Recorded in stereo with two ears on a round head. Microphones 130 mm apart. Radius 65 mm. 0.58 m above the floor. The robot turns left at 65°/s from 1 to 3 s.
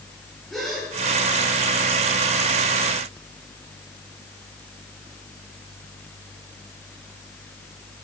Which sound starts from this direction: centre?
A gasp, at 0.5 s.